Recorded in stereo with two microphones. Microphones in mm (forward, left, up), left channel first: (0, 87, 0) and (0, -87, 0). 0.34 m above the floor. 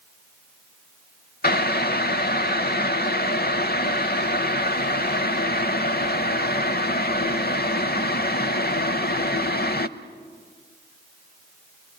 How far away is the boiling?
About 0.7 m.